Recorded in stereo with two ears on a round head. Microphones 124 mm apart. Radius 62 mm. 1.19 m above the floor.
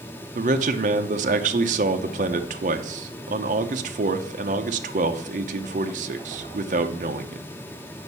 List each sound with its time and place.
0.3 s a man speaking: 55° right (ahead or behind), 0.7 m